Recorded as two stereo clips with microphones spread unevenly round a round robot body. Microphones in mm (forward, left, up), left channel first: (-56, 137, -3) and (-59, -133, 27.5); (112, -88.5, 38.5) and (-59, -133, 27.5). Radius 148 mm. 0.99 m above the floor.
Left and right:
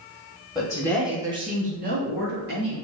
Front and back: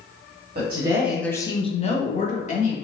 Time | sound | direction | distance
0.6 | a woman speaking | 150° left | 1.0 m